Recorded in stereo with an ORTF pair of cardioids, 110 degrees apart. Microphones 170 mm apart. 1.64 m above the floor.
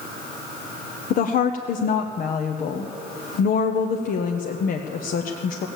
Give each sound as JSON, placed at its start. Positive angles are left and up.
{"t": 1.1, "sound": "a woman speaking", "azimuth_deg": 55, "distance_m": 0.9}